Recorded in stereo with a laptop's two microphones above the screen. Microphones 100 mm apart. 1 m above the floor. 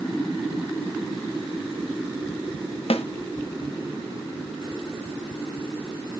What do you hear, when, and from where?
2.9 s a snare drum: 80° left, 0.8 m